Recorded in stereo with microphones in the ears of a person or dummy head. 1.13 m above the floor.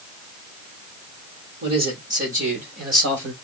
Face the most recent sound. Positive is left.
turn(degrees=-50)  # may be behind; listen again after turning